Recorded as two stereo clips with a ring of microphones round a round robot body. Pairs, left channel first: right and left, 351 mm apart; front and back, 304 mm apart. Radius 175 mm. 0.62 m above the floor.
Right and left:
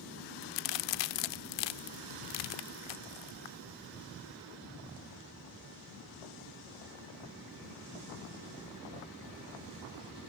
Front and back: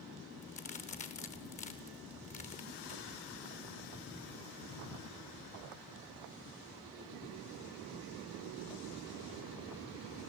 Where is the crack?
70° right, 0.6 m.